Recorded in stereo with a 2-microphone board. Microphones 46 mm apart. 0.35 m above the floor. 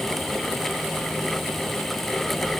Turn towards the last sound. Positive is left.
No sound to turn to.